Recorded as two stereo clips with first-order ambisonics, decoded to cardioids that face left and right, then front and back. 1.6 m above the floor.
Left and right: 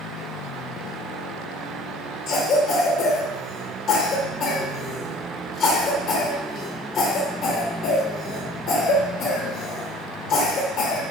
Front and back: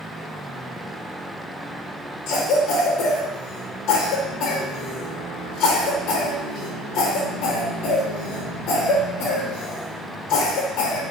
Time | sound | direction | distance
2.3 | a cough | 45° left | 0.8 m